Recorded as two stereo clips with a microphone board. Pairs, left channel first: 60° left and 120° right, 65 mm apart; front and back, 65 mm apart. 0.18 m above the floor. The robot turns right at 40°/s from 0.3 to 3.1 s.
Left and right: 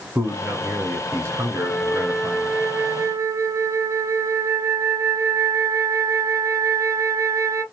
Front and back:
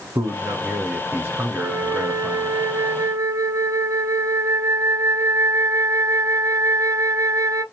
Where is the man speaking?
175° right, 1.6 m; by 2.6 s 85° right, 1.6 m.